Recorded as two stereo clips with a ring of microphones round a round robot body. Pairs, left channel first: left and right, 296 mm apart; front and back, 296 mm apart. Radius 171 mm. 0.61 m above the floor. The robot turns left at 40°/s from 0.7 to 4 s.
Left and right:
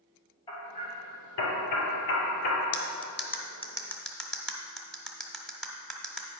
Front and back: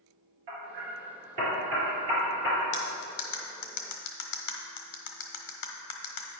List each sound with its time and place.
0.5 s hammering: 170° left, 2.5 m; by 2.6 s 90° left, 2.5 m
2.7 s cutlery clinking: 55° left, 1.2 m; by 6.3 s straight ahead, 1.2 m